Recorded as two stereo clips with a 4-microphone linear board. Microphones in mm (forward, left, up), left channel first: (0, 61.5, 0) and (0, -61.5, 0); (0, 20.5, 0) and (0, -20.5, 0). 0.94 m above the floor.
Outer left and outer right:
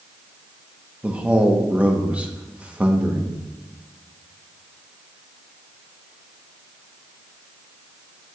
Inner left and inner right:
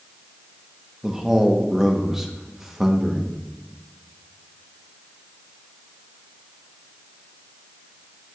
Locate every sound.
1.0 s a man speaking: 10° right (ahead or behind), 1.0 m